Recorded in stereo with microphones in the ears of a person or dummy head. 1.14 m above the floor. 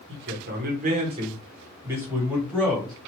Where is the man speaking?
60° right (ahead or behind), 0.9 m; by 2.9 s centre (ahead or behind), 1.6 m.